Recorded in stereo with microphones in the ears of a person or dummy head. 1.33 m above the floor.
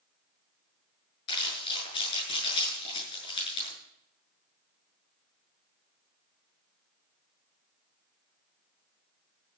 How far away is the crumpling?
About 7.5 m.